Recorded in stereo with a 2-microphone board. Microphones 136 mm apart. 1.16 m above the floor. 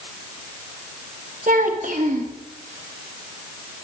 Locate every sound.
1.5 s a child speaking: 75° right (ahead or behind), 1.2 m